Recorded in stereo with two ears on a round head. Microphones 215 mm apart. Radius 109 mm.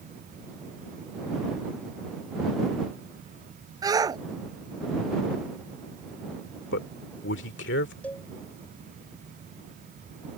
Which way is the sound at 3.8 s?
15° right (ahead or behind).